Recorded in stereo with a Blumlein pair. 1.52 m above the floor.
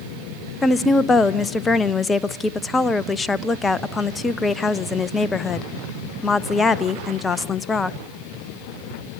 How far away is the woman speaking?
About 0.8 m.